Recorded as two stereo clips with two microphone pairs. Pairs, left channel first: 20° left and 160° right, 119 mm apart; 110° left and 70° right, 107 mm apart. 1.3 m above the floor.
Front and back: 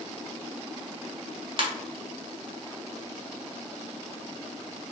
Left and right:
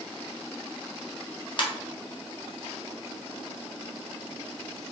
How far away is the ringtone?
About 0.7 m.